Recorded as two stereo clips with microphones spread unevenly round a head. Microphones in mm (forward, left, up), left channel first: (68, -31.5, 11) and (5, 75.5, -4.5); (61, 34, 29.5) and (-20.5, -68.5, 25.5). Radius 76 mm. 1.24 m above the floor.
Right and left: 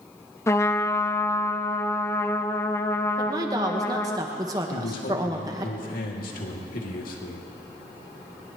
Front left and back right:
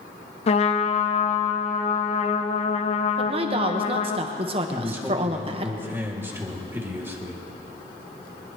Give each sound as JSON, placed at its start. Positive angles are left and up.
{"t": 0.5, "sound": "a trumpet", "azimuth_deg": 10, "distance_m": 0.9}
{"t": 3.2, "sound": "a woman speaking", "azimuth_deg": -175, "distance_m": 1.3}
{"t": 4.7, "sound": "a man speaking", "azimuth_deg": -55, "distance_m": 2.5}